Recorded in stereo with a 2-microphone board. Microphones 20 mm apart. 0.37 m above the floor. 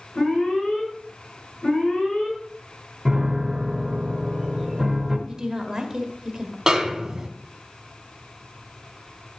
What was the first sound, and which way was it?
An alarm, 65° left (ahead or behind).